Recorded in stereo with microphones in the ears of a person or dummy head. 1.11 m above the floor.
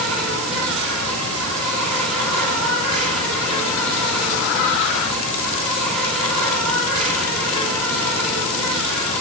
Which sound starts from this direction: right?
An insect, at 0.0 s.